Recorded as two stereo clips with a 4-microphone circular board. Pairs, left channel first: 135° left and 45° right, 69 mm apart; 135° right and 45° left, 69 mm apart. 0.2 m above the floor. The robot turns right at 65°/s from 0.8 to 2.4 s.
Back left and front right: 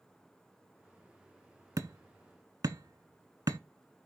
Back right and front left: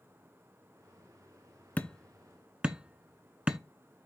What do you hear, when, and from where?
1.8 s hammering: 70° right, 0.7 m; by 3.6 s 30° right, 0.7 m